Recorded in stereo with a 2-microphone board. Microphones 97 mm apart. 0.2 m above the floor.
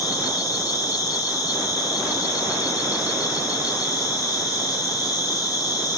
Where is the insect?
35° left (ahead or behind), 1.7 m.